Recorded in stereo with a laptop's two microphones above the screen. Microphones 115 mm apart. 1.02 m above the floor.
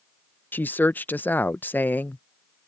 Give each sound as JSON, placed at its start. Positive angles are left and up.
{"t": 0.5, "sound": "a woman speaking", "side_deg": 15}